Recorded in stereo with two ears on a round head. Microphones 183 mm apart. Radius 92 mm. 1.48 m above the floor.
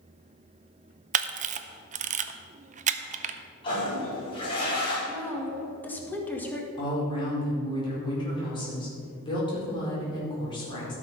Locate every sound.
1.1 s a camera shutter: 35° right (ahead or behind), 0.6 m
3.6 s a toilet flushing: 25° left (ahead or behind), 4 m
5.1 s a woman speaking: 10° left (ahead or behind), 1.9 m
6.8 s a woman speaking: 25° left (ahead or behind), 4.5 m